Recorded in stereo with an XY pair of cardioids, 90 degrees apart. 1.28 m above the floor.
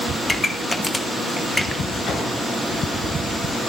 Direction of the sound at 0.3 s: 20° left.